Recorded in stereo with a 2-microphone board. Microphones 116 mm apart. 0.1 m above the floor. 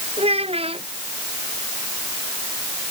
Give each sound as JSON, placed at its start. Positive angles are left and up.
{"t": 0.2, "sound": "a child speaking", "side_deg": -55}